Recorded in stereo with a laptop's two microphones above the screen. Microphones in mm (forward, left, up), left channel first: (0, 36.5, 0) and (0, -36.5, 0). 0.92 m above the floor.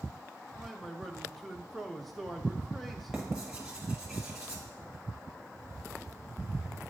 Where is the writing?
10° right (ahead or behind), 1.1 m.